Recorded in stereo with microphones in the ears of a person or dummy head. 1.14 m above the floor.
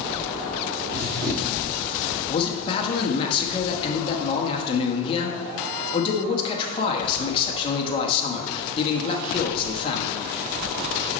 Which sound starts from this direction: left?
A man speaking, at 2.3 s.